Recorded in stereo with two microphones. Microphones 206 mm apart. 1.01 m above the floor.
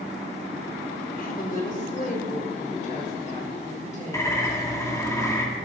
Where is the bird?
15° left (ahead or behind), 1.9 m.